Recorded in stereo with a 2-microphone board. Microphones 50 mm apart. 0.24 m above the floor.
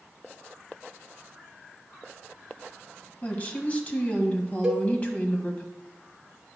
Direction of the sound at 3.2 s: 30° left (ahead or behind).